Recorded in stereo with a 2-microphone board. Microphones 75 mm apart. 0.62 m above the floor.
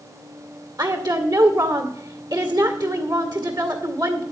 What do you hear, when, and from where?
0.8 s a woman speaking: 65° right (ahead or behind), 2 m